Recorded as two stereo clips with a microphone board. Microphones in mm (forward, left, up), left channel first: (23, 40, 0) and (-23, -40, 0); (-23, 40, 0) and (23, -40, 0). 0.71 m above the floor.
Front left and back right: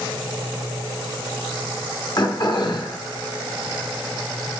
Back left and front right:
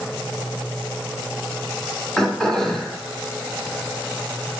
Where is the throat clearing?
40° left, 1.3 m.